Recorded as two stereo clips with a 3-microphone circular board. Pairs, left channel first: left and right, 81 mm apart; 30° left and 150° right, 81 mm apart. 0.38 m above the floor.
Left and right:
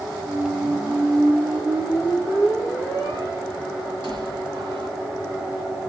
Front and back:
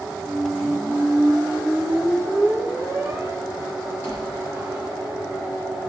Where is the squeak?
95° right, 1.9 m.